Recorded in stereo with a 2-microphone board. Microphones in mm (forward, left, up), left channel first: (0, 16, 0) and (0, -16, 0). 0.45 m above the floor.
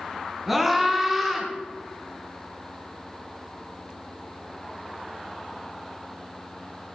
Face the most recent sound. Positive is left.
turn(degrees=-5)  # may be behind; listen again after turning